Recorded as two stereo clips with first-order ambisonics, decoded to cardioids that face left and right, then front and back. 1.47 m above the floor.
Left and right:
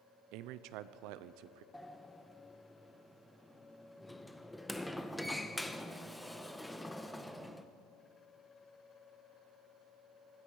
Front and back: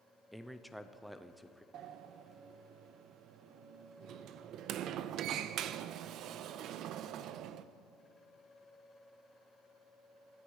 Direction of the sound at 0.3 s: 85° right.